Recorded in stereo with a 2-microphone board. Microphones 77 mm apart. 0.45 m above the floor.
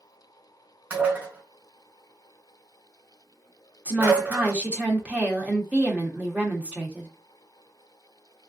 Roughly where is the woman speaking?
Centre.